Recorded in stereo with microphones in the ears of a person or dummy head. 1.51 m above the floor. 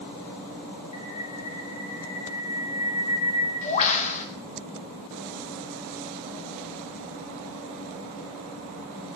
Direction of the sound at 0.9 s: 40° left (ahead or behind).